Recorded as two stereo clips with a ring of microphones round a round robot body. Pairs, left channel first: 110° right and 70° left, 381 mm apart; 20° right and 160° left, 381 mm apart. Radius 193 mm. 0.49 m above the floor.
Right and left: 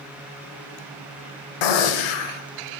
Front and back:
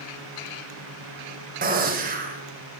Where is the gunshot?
135° right, 0.9 m.